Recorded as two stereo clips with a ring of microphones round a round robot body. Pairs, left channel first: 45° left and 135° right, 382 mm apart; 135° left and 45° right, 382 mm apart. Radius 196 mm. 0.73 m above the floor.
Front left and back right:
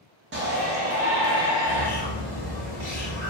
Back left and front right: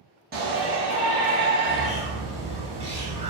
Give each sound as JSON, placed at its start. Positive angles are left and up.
{"t": 0.3, "sound": "a shout", "azimuth_deg": -95, "distance_m": 0.9}
{"t": 1.6, "sound": "a bird", "azimuth_deg": -120, "distance_m": 1.4}